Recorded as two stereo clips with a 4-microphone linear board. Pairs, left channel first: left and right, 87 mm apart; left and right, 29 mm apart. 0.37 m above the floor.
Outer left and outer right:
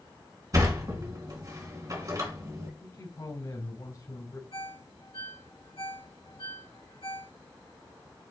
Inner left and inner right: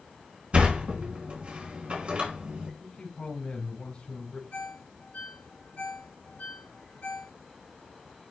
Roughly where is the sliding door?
Right.